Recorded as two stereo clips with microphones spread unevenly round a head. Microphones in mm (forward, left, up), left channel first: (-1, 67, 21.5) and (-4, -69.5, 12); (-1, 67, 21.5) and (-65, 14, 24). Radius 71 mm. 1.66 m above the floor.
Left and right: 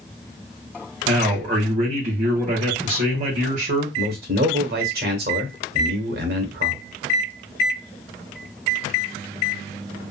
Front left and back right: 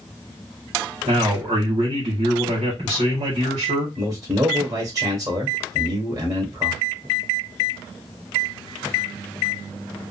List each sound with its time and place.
1.1 s a man speaking: 130° right, 1.4 m
4.0 s a man speaking: 75° right, 1.3 m